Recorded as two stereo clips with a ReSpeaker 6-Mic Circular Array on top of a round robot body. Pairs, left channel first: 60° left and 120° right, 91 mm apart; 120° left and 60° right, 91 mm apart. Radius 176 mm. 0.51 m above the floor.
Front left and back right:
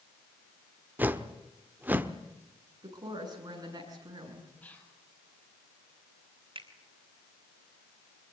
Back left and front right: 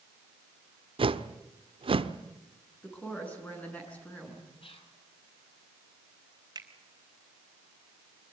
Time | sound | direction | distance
1.0 | a whoosh | 50° right | 1.3 m
2.8 | a woman speaking | 165° right | 8 m
4.6 | whispering | 130° left | 5.5 m
6.5 | a finger snap | 105° right | 4 m